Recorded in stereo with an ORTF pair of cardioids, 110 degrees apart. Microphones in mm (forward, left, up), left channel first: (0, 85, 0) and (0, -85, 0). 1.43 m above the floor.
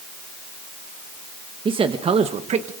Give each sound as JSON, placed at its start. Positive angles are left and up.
{"t": 1.6, "sound": "a man speaking", "azimuth_deg": -30, "distance_m": 1.5}